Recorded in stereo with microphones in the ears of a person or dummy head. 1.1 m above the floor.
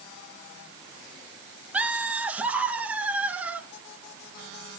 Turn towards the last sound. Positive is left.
turn(degrees=-5)  # may be behind; listen again after turning